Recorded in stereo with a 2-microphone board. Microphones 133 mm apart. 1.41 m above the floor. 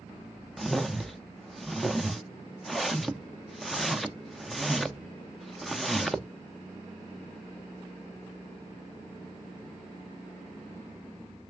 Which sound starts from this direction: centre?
A whoosh, at 0.6 s.